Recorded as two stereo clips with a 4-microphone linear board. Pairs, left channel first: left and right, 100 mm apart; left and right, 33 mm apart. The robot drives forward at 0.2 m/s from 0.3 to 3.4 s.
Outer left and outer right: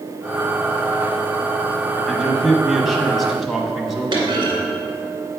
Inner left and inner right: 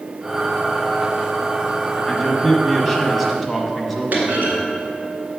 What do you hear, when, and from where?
2.0 s a man speaking: centre (ahead or behind), 1.0 m
4.1 s a clunk: 55° right (ahead or behind), 1.9 m